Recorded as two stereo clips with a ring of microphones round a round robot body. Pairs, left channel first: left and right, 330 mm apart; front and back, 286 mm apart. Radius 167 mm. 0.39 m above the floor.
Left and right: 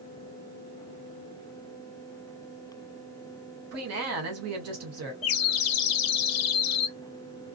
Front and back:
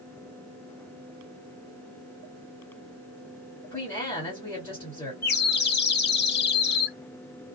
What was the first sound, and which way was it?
A woman speaking, 80° right.